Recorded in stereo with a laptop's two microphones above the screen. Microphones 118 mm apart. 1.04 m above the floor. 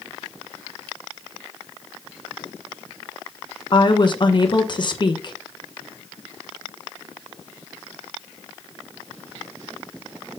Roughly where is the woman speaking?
Left.